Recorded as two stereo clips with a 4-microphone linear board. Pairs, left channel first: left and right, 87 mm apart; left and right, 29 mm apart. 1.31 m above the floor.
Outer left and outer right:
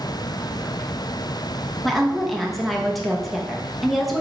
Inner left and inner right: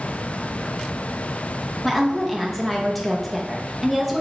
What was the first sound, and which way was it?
A woman speaking, centre (ahead or behind).